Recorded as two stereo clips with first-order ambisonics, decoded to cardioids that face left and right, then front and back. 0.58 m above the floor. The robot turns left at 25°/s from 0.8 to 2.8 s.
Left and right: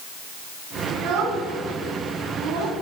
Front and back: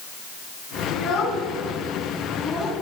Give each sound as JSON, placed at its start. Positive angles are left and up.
{"t": 0.9, "sound": "a child speaking", "azimuth_deg": -50, "distance_m": 3.0}